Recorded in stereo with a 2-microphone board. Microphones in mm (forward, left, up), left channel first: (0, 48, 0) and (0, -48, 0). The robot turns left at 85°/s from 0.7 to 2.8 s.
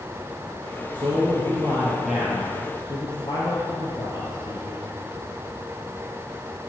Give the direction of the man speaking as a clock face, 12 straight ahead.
3 o'clock.